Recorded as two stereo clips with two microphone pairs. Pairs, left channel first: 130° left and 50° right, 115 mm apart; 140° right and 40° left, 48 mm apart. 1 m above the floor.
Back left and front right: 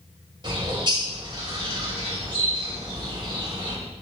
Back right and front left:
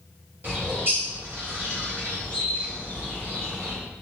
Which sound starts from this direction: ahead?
A bird, at 0.4 s.